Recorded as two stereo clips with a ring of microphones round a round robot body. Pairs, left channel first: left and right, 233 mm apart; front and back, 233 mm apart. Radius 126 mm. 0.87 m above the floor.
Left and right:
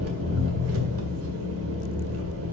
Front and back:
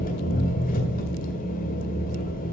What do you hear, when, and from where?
0.0 s an engine running: 60° right, 1.8 m